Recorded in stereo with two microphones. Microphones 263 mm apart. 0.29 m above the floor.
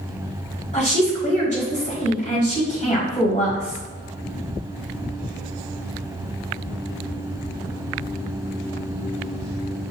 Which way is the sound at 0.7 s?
30° left (ahead or behind).